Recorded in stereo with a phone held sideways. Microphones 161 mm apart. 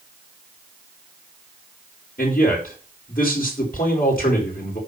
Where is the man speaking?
65° left (ahead or behind), 5 m.